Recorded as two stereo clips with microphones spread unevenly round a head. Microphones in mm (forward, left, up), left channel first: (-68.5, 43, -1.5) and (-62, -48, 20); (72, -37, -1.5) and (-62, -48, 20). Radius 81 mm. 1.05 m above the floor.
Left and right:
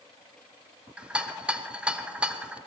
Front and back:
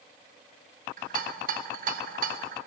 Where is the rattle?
175° right, 0.5 m.